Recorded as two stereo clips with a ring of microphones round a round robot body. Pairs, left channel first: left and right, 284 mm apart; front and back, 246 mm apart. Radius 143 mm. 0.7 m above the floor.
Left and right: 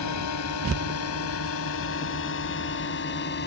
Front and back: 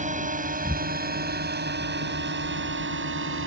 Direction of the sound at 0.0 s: 120° left.